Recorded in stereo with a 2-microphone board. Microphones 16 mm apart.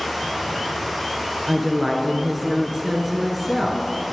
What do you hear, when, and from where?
0.0 s running water: 10° left (ahead or behind), 4.5 m
1.5 s a woman speaking: centre (ahead or behind), 1.6 m